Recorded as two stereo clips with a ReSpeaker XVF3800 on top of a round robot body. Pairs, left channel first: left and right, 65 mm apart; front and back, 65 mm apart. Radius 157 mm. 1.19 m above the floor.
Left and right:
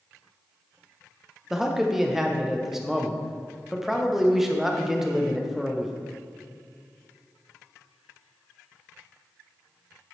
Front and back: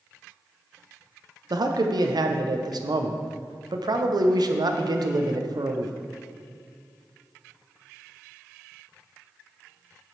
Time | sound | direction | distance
1.5 | a man speaking | 175° right | 0.9 m